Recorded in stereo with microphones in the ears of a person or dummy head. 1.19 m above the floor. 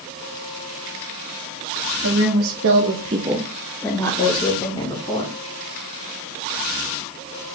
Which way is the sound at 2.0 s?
60° right (ahead or behind).